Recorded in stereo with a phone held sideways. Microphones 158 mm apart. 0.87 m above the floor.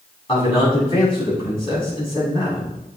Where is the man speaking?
35° left (ahead or behind), 6.5 m.